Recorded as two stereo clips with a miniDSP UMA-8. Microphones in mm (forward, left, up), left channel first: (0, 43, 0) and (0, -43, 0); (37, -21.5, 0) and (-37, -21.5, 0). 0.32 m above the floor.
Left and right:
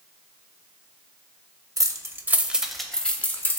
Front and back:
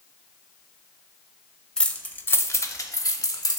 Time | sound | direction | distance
1.8 | keys jangling | 75° right | 0.7 m